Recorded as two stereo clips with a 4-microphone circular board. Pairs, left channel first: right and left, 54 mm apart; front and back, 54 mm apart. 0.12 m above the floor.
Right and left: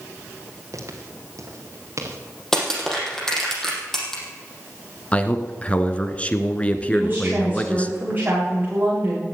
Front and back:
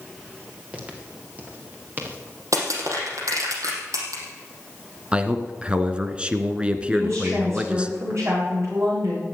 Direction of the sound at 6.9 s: 145° left.